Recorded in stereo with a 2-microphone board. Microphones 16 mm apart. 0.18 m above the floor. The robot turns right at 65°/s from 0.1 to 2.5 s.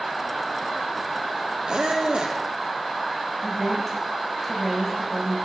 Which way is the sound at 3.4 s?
10° left (ahead or behind).